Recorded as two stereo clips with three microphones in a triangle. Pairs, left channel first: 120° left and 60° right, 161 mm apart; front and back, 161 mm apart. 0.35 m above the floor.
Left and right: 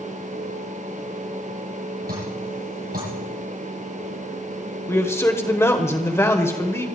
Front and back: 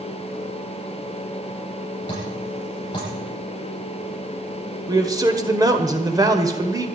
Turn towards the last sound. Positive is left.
turn(degrees=165)